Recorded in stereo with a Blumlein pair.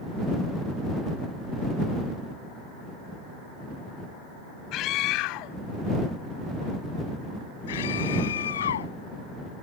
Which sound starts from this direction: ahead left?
A scream, at 4.7 s.